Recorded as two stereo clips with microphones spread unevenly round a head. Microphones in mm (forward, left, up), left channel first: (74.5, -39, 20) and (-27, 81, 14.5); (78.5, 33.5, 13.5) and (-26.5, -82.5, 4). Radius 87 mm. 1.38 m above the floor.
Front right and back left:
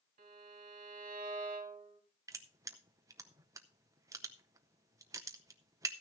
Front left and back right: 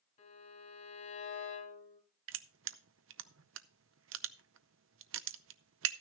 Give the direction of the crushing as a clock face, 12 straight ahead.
5 o'clock.